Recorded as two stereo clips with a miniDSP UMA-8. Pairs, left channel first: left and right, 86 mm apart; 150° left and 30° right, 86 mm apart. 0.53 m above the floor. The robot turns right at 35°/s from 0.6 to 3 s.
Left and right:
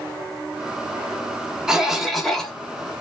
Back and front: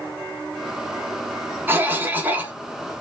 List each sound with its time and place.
1.7 s a cough: 15° right, 0.9 m; by 2.5 s 15° left, 0.9 m